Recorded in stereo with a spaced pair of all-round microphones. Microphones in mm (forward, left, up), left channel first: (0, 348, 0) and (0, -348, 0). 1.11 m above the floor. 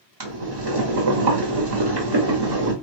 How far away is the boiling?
About 1.0 m.